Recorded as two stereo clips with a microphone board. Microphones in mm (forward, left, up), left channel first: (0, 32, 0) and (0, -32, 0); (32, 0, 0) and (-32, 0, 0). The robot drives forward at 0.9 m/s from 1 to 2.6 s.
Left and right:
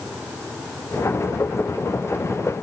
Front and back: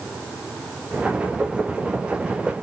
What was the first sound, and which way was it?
Only background noise.